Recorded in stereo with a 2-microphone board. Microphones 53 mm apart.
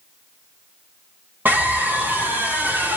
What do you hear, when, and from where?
1.4 s a scream: 40° right (ahead or behind), 2.5 m